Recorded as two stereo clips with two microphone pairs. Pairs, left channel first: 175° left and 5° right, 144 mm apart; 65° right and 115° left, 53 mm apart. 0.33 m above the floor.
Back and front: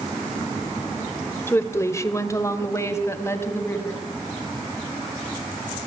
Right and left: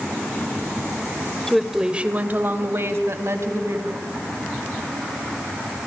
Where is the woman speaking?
145° right, 1.3 m; by 4.0 s 105° left, 3.5 m.